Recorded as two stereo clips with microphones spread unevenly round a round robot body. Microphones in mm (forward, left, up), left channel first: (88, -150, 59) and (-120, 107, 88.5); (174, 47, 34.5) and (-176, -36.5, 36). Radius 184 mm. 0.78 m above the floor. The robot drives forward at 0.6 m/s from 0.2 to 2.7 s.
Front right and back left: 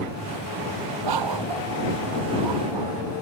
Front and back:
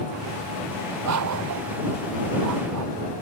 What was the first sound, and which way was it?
A dog barking, 145° left.